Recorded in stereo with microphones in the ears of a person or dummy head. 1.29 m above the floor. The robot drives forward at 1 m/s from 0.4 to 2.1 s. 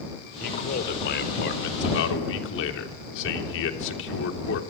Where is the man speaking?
50° left (ahead or behind), 4 m; by 4.6 s 70° left (ahead or behind), 3.5 m.